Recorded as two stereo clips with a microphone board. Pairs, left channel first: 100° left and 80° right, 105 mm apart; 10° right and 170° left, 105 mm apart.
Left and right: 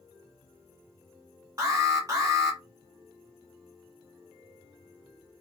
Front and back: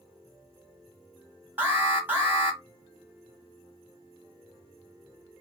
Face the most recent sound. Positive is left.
turn(degrees=-120)